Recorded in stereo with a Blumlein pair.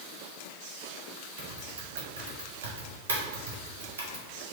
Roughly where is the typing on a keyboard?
Ahead right.